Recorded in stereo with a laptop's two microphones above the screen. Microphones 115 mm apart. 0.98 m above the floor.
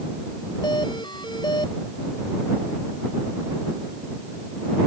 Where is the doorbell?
40° left (ahead or behind).